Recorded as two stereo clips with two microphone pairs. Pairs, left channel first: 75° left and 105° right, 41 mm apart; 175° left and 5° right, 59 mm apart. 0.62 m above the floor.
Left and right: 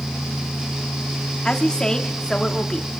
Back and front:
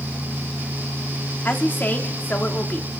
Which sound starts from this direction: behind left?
A woman speaking, at 1.4 s.